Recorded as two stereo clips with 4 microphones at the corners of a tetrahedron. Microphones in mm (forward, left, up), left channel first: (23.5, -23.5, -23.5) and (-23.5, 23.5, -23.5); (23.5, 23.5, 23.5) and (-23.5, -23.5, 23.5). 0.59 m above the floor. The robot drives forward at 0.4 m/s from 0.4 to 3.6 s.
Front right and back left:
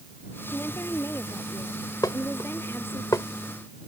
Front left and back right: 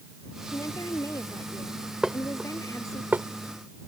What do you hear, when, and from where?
0.5 s a woman speaking: 10° left
2.0 s dishes clattering: 55° right; by 3.3 s 75° right